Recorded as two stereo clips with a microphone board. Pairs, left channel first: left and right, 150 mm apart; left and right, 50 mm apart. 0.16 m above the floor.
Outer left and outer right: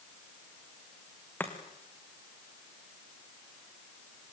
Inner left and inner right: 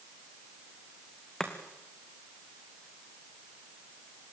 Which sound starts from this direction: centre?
Chopping, at 1.4 s.